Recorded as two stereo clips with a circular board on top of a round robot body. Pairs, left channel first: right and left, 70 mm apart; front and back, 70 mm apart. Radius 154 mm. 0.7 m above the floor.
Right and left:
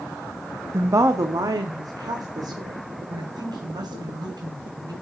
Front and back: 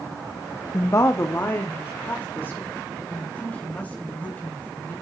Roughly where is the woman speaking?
Ahead left.